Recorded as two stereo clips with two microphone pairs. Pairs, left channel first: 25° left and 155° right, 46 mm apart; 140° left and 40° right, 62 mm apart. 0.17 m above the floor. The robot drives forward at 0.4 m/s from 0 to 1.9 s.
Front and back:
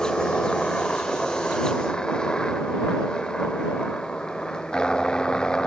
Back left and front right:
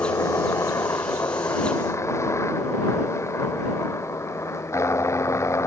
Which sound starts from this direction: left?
A helicopter, at 0.0 s.